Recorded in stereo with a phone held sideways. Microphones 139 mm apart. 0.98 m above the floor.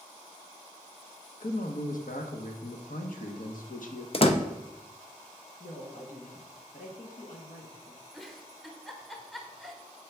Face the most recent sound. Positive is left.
turn(degrees=0)  # may be behind; listen again after turning